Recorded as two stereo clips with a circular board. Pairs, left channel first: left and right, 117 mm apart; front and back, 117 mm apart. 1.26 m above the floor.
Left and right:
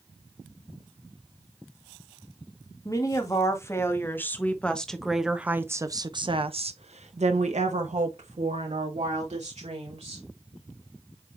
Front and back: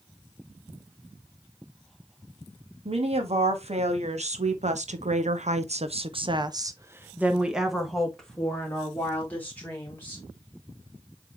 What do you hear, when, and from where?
2.9 s a woman speaking: 150° left, 2 m; by 10.2 s 70° right, 3 m